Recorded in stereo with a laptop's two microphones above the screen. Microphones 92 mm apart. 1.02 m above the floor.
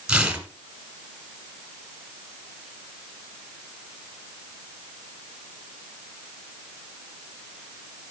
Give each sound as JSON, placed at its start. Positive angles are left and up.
{"t": 0.1, "sound": "tearing paper", "side_deg": -10, "distance_m": 1.5}